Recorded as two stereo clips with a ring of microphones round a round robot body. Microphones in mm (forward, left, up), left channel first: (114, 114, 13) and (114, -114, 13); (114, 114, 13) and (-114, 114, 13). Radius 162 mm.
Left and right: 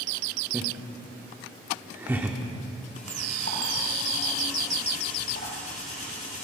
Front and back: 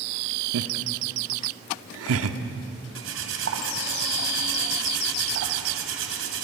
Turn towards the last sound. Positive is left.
turn(degrees=160)